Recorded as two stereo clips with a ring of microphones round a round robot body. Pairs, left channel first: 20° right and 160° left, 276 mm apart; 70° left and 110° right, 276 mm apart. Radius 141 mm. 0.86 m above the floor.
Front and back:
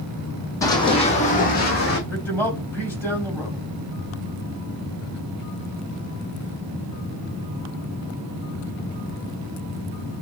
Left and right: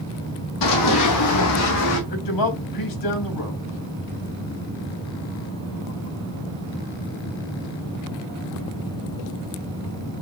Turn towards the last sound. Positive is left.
turn(degrees=60)